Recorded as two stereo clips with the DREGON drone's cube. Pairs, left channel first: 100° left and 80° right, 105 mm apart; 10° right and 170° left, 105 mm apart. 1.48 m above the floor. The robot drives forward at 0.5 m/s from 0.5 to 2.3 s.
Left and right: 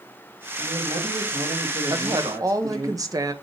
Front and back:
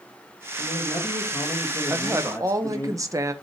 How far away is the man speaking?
About 2 m.